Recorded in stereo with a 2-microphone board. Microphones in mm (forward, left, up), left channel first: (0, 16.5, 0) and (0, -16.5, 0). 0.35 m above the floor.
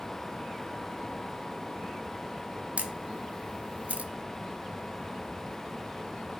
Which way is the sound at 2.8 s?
45° right (ahead or behind).